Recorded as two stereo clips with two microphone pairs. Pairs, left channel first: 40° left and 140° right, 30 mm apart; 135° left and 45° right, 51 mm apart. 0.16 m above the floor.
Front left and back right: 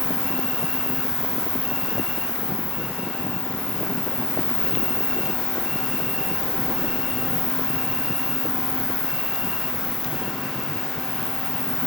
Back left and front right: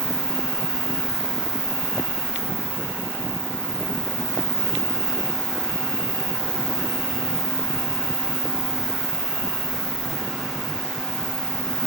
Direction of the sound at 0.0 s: 125° left.